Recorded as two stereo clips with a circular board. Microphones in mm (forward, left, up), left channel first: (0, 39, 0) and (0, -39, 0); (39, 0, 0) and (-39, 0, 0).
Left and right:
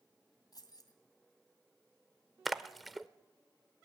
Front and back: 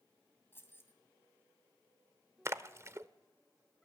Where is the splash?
Straight behind, 0.6 m.